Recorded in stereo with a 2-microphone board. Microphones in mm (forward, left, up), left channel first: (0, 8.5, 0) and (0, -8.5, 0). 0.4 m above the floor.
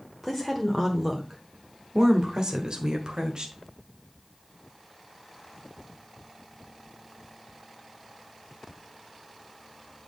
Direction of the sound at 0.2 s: Centre (ahead or behind).